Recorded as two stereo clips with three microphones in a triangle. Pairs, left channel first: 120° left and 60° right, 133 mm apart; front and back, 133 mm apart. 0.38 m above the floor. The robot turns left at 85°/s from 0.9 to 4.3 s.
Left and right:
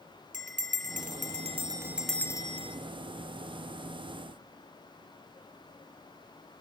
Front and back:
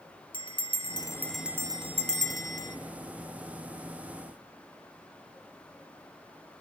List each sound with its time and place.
0.3 s a bell: 50° right, 1.8 m; by 2.8 s 150° left, 1.8 m